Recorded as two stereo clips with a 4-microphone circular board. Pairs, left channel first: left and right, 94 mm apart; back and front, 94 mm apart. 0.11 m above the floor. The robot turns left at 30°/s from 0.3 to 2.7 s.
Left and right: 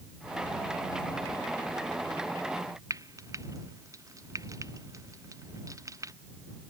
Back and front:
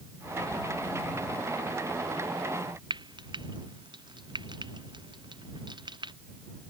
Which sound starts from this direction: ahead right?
Frying, at 2.9 s.